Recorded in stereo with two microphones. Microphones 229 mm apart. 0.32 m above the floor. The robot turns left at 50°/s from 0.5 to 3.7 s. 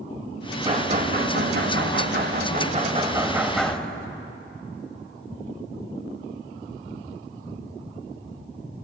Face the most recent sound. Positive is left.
turn(degrees=175)